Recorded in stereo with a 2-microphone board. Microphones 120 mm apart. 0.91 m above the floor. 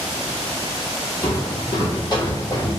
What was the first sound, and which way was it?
Footsteps, 45° left (ahead or behind).